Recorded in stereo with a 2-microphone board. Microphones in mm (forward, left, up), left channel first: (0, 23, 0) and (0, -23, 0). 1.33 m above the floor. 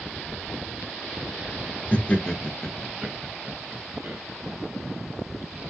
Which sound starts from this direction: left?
Laughter, at 1.9 s.